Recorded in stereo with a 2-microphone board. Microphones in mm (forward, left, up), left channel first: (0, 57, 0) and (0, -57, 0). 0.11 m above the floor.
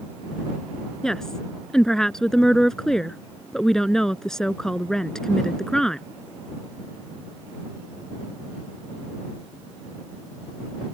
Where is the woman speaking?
5° left (ahead or behind).